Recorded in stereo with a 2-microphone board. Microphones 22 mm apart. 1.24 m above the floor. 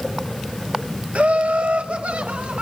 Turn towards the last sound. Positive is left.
turn(degrees=-85)